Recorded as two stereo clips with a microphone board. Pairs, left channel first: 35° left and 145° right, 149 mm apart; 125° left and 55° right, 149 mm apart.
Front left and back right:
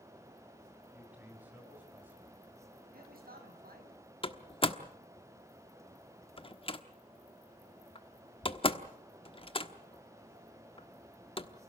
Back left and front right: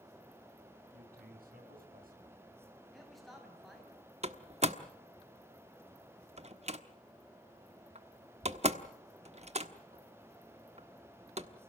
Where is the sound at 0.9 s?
65° right, 7.5 m; by 2.4 s 70° right, 6 m.